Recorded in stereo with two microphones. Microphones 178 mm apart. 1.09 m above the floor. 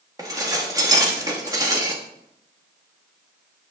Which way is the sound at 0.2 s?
20° right (ahead or behind).